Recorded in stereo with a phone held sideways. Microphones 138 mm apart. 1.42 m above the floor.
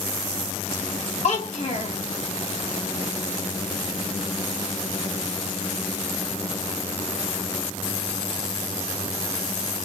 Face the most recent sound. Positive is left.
turn(degrees=55)  # may be behind; listen again after turning